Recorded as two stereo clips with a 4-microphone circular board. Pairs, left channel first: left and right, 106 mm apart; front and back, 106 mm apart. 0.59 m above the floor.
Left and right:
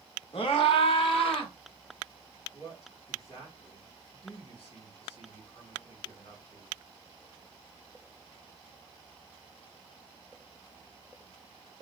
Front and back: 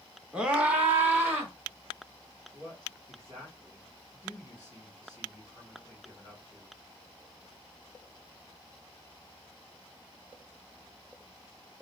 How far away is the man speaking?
About 3.5 m.